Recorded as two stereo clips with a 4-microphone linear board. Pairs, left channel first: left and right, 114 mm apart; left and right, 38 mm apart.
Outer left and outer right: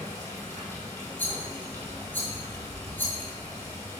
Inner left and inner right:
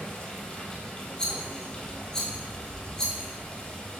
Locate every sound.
0.0 s running water: 20° left (ahead or behind), 1.9 m
1.2 s a rattle: 15° left (ahead or behind), 1.5 m